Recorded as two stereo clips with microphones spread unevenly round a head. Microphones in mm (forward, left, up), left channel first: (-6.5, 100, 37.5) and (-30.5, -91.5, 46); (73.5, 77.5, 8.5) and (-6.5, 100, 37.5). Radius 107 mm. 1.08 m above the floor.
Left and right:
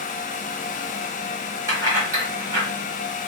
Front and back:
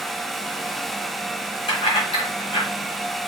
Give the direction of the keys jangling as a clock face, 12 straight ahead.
1 o'clock.